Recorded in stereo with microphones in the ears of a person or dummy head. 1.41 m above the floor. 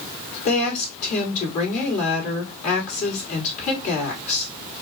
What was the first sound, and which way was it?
A woman speaking, 45° left (ahead or behind).